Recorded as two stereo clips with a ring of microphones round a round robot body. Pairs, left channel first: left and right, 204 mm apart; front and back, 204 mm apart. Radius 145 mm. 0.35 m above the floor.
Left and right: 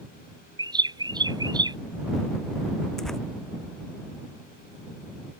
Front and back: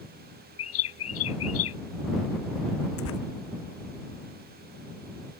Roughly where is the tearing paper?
Ahead.